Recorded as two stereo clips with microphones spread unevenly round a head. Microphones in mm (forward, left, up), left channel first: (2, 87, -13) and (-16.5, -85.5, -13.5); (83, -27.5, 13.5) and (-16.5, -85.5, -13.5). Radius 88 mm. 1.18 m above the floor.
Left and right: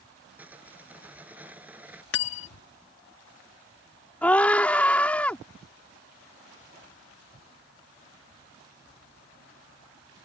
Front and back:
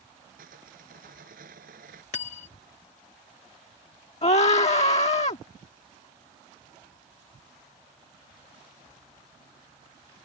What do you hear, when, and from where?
0.4 s sawing: straight behind
2.1 s cutlery clinking: 65° left
4.2 s a scream: straight ahead